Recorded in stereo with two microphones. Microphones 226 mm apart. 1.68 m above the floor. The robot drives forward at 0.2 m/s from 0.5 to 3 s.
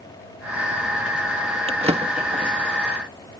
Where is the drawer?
25° right (ahead or behind).